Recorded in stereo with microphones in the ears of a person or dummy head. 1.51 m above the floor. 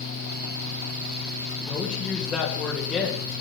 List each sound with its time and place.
1.7 s a woman speaking: 5° left (ahead or behind), 2.5 m